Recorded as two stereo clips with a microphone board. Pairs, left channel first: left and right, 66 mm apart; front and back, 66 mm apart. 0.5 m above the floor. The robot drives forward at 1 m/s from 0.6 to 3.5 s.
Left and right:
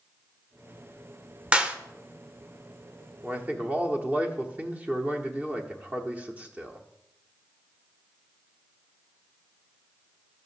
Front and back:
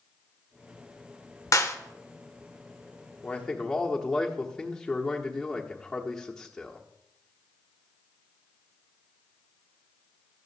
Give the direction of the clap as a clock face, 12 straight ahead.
1 o'clock.